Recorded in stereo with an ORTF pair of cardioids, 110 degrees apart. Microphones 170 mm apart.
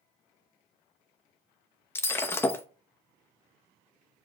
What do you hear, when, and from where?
1.9 s breaking glass: 15° left, 0.7 m